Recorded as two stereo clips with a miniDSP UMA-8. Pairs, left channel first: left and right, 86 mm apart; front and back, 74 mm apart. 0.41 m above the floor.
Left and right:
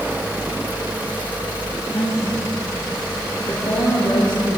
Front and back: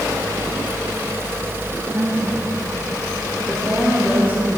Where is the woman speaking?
130° left, 2.5 m; by 4.6 s 100° left, 3.5 m.